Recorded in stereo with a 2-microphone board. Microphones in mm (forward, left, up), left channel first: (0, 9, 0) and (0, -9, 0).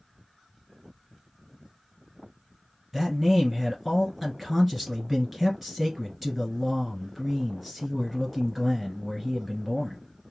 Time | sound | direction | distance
2.9 | a man speaking | 5° right (ahead or behind) | 1.6 m